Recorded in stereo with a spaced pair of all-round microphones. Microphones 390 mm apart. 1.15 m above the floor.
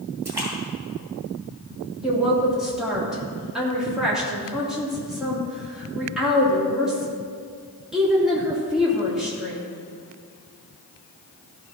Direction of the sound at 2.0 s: Centre (ahead or behind).